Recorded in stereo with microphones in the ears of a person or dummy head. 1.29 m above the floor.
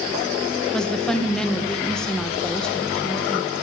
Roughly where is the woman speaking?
Centre.